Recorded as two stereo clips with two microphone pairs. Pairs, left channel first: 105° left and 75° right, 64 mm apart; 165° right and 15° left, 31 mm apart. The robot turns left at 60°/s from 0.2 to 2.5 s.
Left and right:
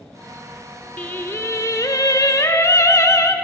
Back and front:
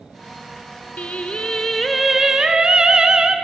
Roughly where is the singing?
Behind.